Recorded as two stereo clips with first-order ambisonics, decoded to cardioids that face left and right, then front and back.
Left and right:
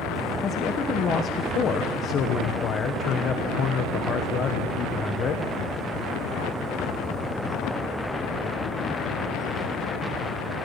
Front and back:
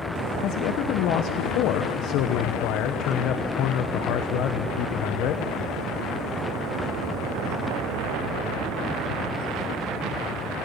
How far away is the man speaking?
About 1.0 m.